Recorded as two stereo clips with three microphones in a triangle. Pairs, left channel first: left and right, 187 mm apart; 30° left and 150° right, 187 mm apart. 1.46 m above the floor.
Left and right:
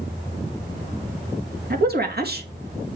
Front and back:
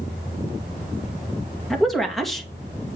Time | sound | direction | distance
1.7 | a woman speaking | 60° right | 2 m